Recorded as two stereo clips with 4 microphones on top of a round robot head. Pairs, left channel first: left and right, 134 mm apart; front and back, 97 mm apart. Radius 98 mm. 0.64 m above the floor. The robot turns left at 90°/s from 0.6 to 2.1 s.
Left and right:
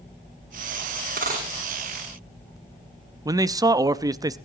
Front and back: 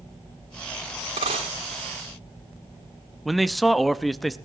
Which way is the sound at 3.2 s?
90° right.